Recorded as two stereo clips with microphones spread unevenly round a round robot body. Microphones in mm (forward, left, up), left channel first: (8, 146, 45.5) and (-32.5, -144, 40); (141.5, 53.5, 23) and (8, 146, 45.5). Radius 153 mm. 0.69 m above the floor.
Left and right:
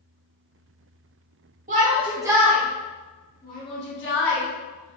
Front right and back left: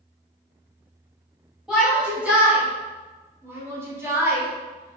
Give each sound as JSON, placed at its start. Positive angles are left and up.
{"t": 1.7, "sound": "a shout", "azimuth_deg": -115, "distance_m": 1.1}